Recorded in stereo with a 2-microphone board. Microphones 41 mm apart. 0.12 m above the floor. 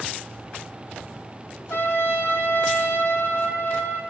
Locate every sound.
1.7 s a trumpet: 70° left (ahead or behind), 0.9 m